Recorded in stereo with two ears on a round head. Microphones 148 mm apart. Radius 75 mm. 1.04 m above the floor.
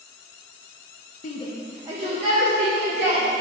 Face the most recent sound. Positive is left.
turn(degrees=-50)  # may be behind; listen again after turning